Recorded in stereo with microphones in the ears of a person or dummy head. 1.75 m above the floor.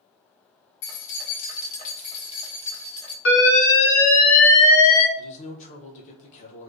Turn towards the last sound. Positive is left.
turn(degrees=40)  # may be behind; listen again after turning